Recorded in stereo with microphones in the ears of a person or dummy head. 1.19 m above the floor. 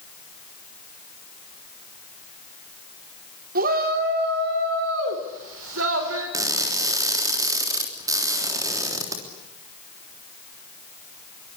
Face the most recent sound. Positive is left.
turn(degrees=-20)  # may be behind; listen again after turning